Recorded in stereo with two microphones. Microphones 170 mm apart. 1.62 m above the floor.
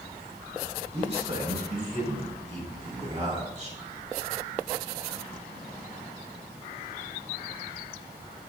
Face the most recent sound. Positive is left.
turn(degrees=-45)  # may be behind; listen again after turning